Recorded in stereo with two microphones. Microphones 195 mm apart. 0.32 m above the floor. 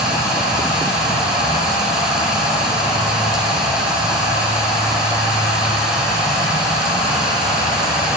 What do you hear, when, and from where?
0.0 s running water: 5° right (ahead or behind), 2.5 m